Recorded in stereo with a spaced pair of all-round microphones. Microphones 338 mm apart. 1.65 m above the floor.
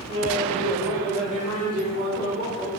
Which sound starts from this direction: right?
Laughter, at 0.1 s.